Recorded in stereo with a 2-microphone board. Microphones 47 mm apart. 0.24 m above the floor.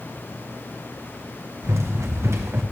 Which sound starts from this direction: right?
Running footsteps, at 1.6 s.